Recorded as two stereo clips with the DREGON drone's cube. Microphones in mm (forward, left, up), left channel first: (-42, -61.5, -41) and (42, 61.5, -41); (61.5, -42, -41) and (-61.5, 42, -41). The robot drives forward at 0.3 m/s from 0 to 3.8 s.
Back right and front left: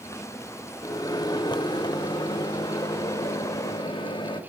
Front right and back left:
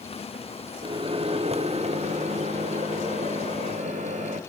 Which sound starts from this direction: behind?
A microwave, at 0.8 s.